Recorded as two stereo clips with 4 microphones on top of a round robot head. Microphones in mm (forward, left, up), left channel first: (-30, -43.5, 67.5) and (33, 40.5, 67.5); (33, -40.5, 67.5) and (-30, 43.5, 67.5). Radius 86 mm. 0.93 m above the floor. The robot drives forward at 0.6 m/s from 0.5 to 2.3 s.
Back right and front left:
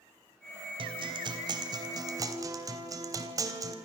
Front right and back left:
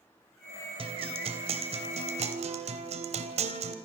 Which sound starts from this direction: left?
A guitar, at 0.8 s.